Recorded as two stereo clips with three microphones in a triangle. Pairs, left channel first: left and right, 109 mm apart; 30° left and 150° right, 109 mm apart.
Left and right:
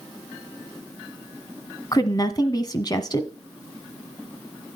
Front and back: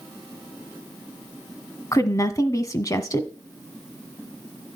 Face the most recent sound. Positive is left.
turn(degrees=70)